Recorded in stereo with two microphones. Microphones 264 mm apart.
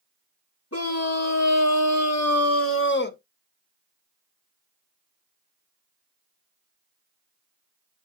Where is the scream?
60° left (ahead or behind), 2.0 m; by 3.2 s 35° left (ahead or behind), 1.3 m.